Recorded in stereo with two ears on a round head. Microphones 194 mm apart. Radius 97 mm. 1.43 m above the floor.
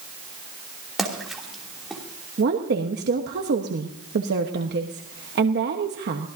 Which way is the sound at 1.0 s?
Centre (ahead or behind).